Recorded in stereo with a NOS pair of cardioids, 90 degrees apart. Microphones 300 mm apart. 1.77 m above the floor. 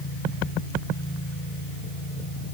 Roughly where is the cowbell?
I don't hear a cowbell.